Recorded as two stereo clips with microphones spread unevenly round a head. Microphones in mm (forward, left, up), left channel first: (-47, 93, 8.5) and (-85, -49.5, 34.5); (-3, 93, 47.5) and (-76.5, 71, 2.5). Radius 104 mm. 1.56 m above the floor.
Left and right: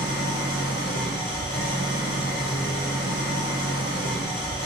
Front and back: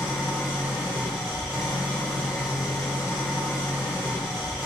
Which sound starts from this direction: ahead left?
An engine running, at 0.0 s.